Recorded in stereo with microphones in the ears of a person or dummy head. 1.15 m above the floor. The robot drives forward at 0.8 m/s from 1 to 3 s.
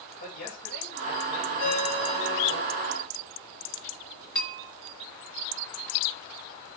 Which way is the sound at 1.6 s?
45° left (ahead or behind).